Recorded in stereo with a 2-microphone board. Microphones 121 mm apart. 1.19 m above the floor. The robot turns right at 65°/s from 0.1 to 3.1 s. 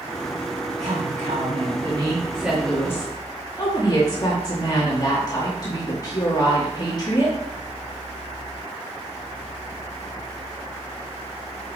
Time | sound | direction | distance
0.8 | a woman speaking | 115° right | 1.9 m